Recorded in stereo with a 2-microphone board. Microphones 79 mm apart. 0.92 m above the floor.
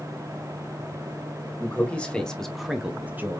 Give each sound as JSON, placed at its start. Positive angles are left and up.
{"t": 1.6, "sound": "a man speaking", "side_deg": 15, "distance_m": 1.2}